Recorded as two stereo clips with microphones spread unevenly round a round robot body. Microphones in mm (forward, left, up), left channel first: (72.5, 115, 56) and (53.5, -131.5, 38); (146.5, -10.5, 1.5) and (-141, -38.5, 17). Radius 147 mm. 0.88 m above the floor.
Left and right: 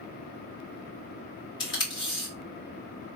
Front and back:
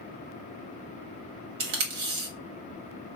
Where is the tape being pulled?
160° left, 1.2 m.